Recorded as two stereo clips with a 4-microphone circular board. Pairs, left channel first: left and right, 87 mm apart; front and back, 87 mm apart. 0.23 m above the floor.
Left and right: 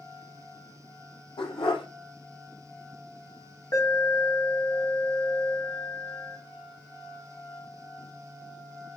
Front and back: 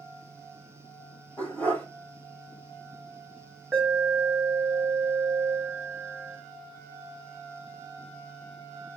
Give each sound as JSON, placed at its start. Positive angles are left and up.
{"t": 1.4, "sound": "a dog barking", "azimuth_deg": 75, "distance_m": 2.5}
{"t": 3.7, "sound": "an alarm", "azimuth_deg": 75, "distance_m": 1.8}